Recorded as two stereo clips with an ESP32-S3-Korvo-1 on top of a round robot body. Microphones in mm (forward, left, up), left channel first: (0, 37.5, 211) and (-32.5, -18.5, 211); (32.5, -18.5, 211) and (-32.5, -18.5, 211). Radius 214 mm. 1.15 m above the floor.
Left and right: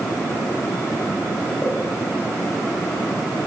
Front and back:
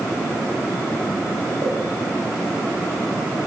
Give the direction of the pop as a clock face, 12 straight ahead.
8 o'clock.